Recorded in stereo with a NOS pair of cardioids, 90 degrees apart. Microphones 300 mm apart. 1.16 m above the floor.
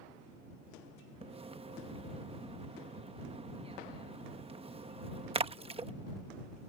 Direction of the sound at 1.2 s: 20° right.